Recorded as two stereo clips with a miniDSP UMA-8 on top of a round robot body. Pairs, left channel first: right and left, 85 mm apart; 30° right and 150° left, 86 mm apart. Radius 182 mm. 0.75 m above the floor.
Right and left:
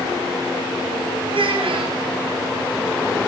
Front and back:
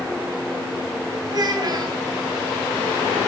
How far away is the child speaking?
About 3 m.